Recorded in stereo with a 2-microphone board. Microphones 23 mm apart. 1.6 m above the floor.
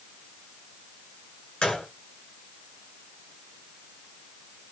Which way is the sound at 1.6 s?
55° left (ahead or behind).